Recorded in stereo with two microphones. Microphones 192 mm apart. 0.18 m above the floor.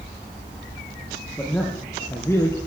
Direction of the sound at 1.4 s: 10° left (ahead or behind).